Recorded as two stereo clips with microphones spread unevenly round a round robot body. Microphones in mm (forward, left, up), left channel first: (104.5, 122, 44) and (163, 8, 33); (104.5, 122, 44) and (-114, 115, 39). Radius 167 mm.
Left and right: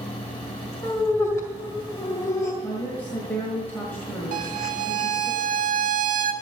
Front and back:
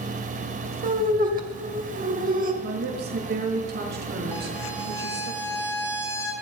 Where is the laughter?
175° right, 1.9 m.